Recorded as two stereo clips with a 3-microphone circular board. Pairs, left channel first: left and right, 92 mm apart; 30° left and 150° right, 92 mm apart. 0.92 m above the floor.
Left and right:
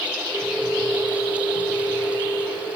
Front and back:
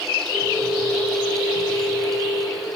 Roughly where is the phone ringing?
Behind right.